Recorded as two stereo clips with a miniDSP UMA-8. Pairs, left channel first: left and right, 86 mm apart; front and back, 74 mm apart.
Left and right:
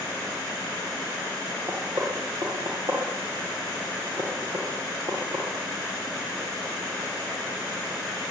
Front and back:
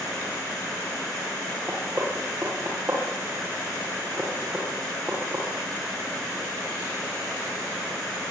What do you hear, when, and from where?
1.7 s knocking: 120° right, 10 m